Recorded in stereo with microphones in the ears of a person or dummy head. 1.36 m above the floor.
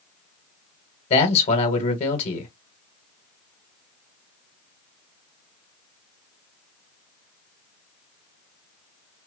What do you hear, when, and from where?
1.1 s a man speaking: 35° left (ahead or behind), 1.2 m